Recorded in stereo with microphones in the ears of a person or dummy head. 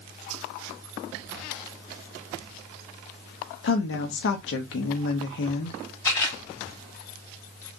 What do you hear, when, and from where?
3.6 s a woman speaking: 75° left (ahead or behind), 0.9 m
6.0 s a camera shutter: 20° left (ahead or behind), 2 m